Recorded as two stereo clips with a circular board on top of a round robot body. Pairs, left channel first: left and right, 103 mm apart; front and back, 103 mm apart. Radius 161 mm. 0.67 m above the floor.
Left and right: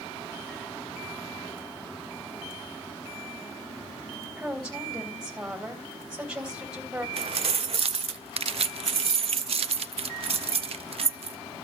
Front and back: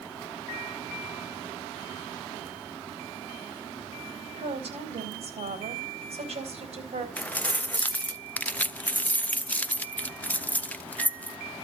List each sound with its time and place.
4.4 s a woman speaking: 170° right, 3.5 m
7.2 s keys jangling: 75° right, 0.5 m